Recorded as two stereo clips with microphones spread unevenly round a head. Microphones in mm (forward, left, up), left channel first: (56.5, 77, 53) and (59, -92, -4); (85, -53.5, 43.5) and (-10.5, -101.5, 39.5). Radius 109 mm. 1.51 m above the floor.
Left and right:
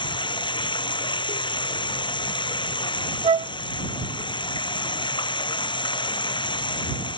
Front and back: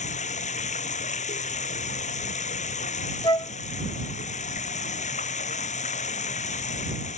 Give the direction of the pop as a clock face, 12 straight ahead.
No pop in this recording.